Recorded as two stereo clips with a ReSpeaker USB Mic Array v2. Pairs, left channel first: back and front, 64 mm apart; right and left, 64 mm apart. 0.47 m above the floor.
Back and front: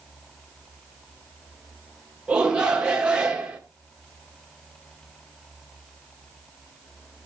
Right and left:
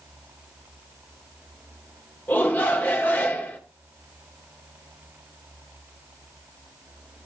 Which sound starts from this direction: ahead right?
A shout, at 2.3 s.